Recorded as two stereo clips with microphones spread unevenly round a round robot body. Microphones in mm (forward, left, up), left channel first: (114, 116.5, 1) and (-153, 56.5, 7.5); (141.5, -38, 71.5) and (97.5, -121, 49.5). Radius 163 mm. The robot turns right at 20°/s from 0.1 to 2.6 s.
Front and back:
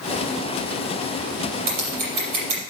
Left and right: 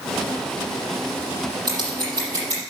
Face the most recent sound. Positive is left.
turn(degrees=-170)